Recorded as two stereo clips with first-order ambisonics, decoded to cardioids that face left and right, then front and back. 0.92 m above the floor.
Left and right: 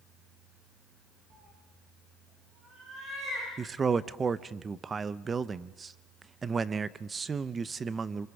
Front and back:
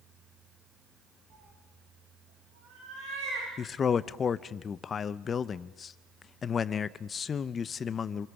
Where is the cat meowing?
135° right, 6.5 m; by 3.5 s 145° right, 9.5 m.